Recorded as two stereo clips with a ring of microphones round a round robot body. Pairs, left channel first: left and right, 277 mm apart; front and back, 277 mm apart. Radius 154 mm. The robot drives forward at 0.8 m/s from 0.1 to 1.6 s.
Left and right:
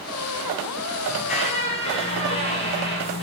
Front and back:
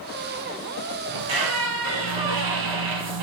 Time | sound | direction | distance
1.1 | a squeak | 160° left | 1.4 m